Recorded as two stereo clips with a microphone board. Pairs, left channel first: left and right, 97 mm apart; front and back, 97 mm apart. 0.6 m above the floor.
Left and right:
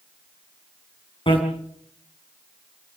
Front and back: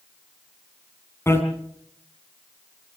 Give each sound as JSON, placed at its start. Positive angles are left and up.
{"t": 1.3, "sound": "a bicycle bell", "azimuth_deg": 65, "distance_m": 4.0}